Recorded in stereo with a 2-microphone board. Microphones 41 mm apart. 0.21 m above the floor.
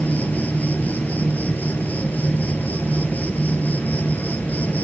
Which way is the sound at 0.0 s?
45° left (ahead or behind).